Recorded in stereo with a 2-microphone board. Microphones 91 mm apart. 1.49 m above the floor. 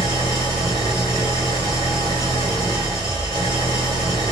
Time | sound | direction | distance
0.0 | an engine running | 75° left (ahead or behind) | 1.8 m